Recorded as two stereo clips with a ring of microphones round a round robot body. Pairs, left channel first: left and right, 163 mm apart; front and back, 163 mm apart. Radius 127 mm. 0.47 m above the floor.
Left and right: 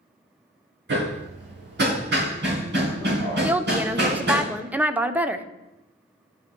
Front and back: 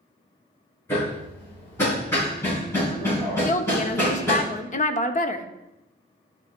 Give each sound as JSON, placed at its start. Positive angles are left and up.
{"t": 0.9, "sound": "hammering", "azimuth_deg": -80, "distance_m": 4.5}
{"t": 3.4, "sound": "a woman speaking", "azimuth_deg": -10, "distance_m": 1.0}